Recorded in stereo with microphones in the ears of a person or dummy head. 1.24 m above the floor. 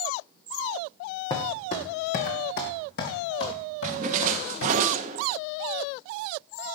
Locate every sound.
1.3 s footsteps: 25° left (ahead or behind), 2.5 m; by 4.8 s 75° left (ahead or behind), 5 m
3.8 s a splash: 50° right (ahead or behind), 1.1 m